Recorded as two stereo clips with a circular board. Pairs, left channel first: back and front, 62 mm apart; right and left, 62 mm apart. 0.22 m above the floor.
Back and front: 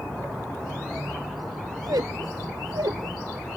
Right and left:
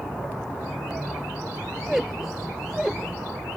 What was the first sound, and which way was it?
A squeak, 10° left.